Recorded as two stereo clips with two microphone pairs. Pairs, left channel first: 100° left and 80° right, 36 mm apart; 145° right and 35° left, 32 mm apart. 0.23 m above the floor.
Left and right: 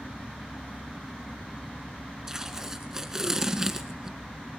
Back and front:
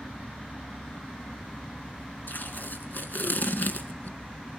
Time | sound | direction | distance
2.3 | tape being pulled | 155° right | 1.4 m